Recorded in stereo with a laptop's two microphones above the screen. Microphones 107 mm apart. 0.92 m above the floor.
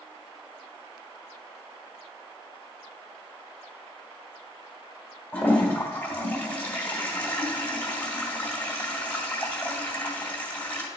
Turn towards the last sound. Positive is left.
turn(degrees=15)  # may be behind; listen again after turning